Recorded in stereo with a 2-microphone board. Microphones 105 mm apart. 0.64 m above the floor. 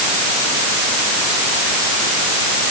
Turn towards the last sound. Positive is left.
No sound to turn to.